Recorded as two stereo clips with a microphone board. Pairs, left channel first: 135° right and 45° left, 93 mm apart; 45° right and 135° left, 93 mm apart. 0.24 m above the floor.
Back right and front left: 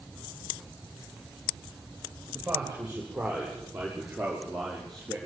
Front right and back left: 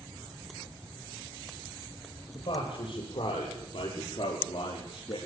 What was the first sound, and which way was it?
A man speaking, 30° right.